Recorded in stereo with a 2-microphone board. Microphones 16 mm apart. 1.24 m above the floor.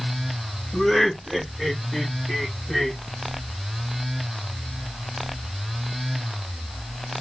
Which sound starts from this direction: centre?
Laughter, at 0.7 s.